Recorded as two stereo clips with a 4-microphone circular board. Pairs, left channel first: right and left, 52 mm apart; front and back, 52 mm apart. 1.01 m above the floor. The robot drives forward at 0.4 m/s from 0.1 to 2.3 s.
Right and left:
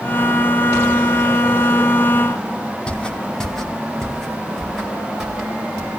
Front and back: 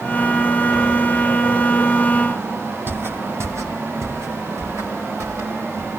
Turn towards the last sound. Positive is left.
turn(degrees=175)